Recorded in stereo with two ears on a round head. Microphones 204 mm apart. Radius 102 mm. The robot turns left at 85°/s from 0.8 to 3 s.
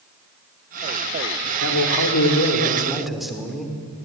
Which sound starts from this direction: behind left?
A man speaking, at 1.6 s.